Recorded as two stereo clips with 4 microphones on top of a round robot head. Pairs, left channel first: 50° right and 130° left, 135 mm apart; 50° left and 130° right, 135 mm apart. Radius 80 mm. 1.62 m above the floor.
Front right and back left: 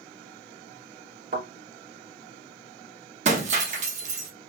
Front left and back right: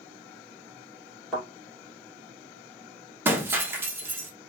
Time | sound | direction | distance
1.3 | a thud | 145° left | 2.5 m
3.2 | breaking glass | 160° left | 1.2 m